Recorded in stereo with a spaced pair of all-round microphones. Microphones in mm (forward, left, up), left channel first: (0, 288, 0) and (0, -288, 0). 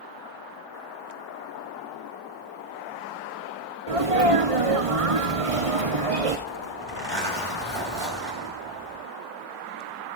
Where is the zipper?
45° right (ahead or behind), 9 m.